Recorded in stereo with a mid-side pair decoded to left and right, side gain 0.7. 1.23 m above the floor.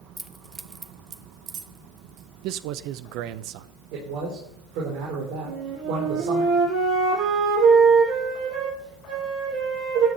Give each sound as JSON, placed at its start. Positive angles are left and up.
{"t": 0.2, "sound": "keys jangling", "azimuth_deg": -5, "distance_m": 1.2}
{"t": 2.4, "sound": "a man speaking", "azimuth_deg": -65, "distance_m": 0.8}
{"t": 3.9, "sound": "a man speaking", "azimuth_deg": -70, "distance_m": 4.5}
{"t": 5.5, "sound": "a flute", "azimuth_deg": -50, "distance_m": 7.0}